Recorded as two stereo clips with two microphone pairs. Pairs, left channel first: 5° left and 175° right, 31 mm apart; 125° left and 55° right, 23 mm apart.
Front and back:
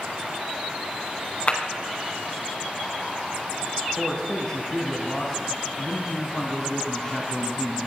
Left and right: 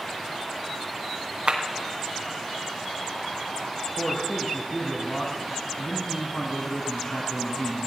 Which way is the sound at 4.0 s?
70° left.